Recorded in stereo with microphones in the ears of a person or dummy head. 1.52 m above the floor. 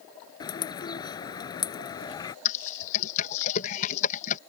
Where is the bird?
20° left (ahead or behind).